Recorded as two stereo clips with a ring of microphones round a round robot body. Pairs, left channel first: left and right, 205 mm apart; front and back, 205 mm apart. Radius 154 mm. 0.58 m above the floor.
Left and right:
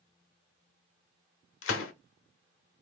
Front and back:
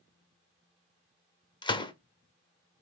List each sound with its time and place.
1.6 s a gunshot: 70° left, 0.7 m